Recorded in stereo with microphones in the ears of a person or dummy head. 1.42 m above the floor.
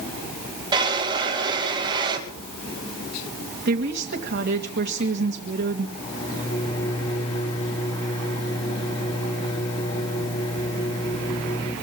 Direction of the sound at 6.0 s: 35° left (ahead or behind).